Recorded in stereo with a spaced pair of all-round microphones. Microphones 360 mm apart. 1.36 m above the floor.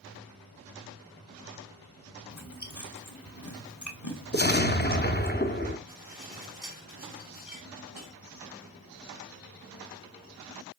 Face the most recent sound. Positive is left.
turn(degrees=60)  # may be behind; listen again after turning